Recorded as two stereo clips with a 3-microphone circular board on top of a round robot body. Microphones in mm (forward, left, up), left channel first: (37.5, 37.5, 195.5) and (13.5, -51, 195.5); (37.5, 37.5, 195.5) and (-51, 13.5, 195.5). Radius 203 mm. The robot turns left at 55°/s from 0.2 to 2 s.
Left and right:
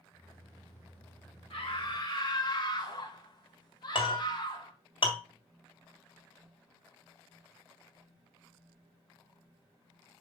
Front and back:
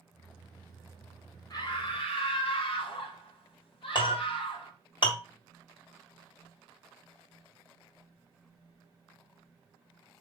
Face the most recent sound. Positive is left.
turn(degrees=50)